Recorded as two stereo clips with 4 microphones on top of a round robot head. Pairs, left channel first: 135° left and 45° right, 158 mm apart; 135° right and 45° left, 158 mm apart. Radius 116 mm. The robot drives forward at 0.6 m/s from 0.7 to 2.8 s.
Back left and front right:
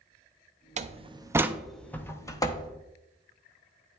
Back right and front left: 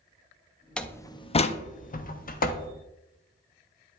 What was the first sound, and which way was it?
A door slam, 55° right.